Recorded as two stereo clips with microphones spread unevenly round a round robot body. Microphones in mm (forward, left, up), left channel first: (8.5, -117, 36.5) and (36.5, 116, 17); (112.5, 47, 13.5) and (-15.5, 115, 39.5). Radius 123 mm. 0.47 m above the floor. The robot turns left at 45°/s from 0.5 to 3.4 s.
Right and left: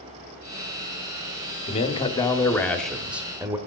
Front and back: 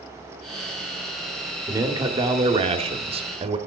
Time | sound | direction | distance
1.7 | a man speaking | 140° right | 1.1 m